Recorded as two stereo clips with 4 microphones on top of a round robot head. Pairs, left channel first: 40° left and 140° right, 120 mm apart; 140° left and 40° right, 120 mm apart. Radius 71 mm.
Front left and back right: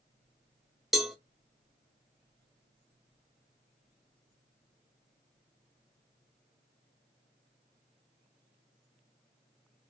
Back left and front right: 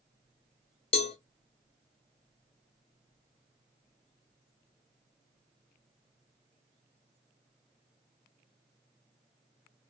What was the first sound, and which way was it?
A cowbell, 130° left.